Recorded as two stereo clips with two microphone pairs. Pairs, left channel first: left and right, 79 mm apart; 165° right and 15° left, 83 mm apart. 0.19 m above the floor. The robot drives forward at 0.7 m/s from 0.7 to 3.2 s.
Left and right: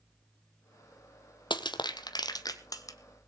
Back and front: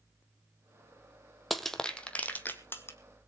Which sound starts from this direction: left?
Crushing, at 1.5 s.